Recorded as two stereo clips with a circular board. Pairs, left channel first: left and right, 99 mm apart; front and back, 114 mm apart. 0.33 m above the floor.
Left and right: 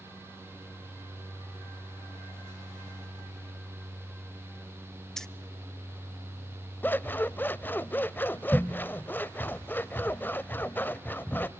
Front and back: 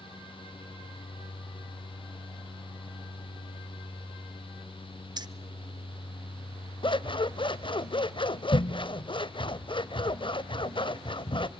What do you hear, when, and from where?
5.2 s keys jangling: 170° left, 0.6 m
6.8 s scissors: 25° left, 0.6 m